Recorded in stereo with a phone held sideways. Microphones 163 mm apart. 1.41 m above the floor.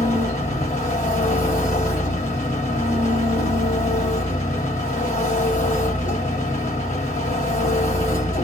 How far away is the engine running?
About 1.6 m.